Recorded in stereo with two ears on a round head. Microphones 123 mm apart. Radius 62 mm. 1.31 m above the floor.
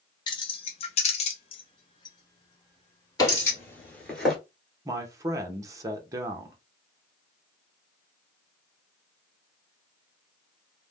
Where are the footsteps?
25° left (ahead or behind), 1.4 m; by 4.4 s centre (ahead or behind), 1.3 m.